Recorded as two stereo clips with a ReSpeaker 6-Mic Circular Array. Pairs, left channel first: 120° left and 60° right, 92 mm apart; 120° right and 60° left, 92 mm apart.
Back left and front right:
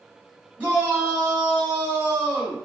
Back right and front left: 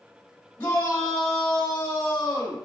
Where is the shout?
115° right, 1.6 m.